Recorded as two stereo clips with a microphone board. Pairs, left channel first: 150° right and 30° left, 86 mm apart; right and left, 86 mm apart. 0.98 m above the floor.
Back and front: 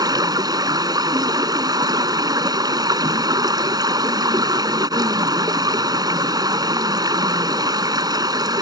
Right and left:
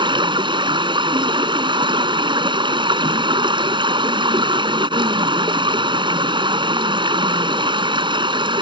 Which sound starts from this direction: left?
Running water, at 0.0 s.